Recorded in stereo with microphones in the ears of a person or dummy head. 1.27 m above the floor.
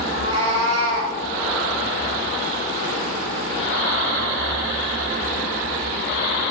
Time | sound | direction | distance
0.1 | a cat meowing | 30° right (ahead or behind) | 0.6 m